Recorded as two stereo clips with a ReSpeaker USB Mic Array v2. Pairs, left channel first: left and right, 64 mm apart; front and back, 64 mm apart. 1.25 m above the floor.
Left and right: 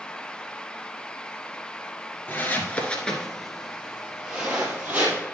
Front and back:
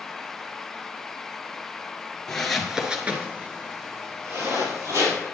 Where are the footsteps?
75° left, 1.4 m; by 5.2 s 155° right, 2.5 m.